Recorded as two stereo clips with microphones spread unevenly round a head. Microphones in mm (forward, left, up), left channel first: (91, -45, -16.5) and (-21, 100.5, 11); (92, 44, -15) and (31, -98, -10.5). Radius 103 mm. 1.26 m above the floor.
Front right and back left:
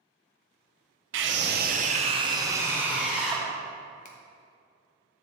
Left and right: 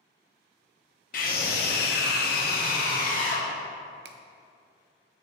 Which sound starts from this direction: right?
A finger snap, at 4.0 s.